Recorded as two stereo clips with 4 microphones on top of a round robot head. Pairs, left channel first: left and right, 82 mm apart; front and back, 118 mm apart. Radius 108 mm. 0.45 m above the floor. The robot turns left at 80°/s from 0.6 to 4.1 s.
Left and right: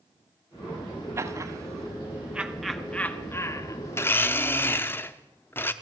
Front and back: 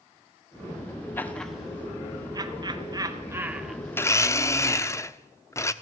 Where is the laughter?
60° right, 1.6 m; by 4.9 s 65° left, 1.6 m.